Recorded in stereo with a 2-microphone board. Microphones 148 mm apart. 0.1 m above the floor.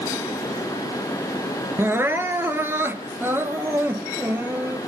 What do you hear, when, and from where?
1.8 s crying: 15° right (ahead or behind), 1.4 m